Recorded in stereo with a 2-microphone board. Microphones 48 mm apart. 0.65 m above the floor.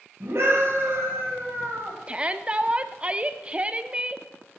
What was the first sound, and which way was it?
A scream, 55° right (ahead or behind).